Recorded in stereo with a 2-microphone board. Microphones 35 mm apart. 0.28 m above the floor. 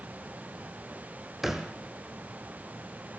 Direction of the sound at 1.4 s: 10° right (ahead or behind).